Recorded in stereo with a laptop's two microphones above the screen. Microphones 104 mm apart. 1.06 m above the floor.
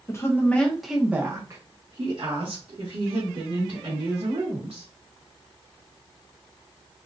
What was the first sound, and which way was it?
A woman speaking, 30° left (ahead or behind).